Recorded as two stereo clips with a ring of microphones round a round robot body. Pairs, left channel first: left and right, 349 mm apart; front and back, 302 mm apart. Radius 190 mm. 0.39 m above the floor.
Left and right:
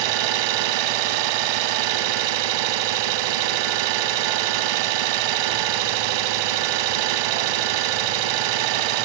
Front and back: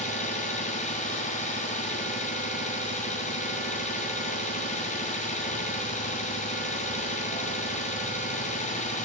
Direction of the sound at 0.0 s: 70° right.